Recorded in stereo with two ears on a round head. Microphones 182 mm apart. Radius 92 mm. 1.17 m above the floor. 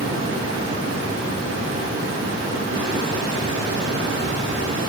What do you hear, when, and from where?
0.0 s running water: 70° right (ahead or behind), 4 m